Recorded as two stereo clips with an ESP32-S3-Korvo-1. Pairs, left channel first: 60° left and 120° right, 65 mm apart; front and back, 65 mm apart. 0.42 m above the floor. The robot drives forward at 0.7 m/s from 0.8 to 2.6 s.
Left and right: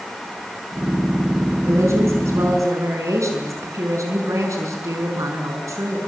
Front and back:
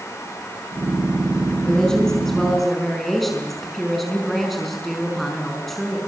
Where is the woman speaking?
80° right, 5 m; by 6.0 s 90° right, 5 m.